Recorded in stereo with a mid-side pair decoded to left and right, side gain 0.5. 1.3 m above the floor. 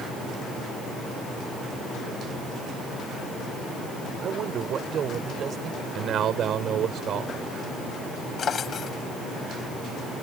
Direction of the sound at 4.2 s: 55° right.